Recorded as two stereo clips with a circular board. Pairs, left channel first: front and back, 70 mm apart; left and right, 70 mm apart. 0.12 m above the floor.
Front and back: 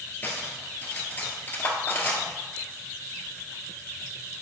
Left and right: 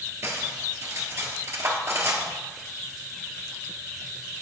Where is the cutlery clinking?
55° right, 1.5 m.